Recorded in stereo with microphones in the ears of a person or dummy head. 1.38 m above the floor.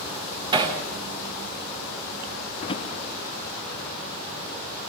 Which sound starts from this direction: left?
A drawer, at 2.6 s.